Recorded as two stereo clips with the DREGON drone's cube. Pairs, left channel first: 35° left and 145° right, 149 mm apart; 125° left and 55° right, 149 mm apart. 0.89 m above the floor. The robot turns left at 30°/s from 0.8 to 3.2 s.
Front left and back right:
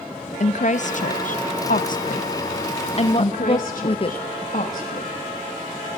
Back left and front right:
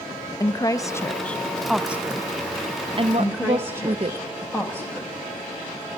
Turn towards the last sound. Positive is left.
turn(degrees=55)